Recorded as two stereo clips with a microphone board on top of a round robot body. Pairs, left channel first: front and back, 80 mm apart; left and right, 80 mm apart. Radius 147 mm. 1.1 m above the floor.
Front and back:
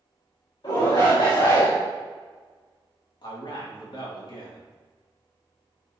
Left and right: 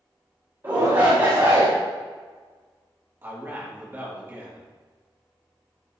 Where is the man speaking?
25° right, 2.5 m.